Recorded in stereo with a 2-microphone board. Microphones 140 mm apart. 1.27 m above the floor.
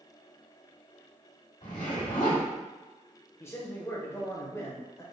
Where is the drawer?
No drawer in this recording.